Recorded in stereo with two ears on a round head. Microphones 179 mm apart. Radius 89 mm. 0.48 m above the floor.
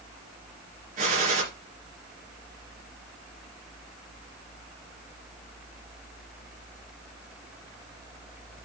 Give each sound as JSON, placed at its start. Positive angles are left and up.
{"t": 1.0, "sound": "a gunshot", "side_deg": -40, "distance_m": 2.5}